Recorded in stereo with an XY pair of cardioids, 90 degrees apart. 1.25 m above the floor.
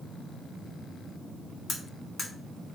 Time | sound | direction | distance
1.7 | cutlery clinking | 60° left | 1.3 m